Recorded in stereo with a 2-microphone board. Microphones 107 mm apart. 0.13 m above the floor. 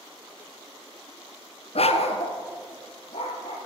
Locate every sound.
1.8 s a dog barking: 65° left (ahead or behind), 0.6 m